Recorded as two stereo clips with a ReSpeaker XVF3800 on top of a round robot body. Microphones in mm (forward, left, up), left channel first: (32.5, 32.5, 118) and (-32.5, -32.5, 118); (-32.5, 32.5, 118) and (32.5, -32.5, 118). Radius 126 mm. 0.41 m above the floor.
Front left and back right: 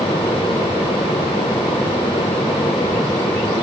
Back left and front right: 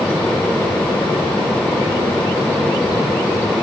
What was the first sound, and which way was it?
Only background noise.